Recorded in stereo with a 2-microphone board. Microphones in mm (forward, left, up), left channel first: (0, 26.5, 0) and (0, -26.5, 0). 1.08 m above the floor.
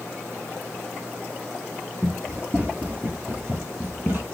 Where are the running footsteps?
20° right (ahead or behind), 1.4 m; by 4.2 s 40° right (ahead or behind), 1.7 m.